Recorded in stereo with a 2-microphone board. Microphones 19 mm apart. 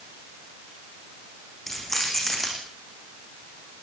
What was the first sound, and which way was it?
Keys jangling, 15° left (ahead or behind).